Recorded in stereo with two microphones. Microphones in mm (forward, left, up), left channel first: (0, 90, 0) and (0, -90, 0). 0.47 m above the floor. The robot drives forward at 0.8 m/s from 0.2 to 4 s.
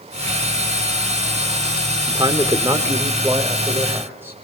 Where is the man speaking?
25° right (ahead or behind), 1.2 m; by 4.3 s 15° right (ahead or behind), 2.5 m.